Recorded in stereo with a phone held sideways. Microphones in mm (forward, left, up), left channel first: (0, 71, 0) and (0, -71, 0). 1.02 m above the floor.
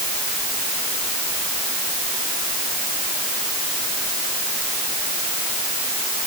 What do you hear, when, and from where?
Only background noise.